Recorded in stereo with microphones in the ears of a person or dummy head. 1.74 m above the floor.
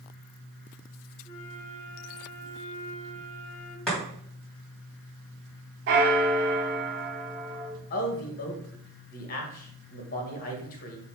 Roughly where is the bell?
Right.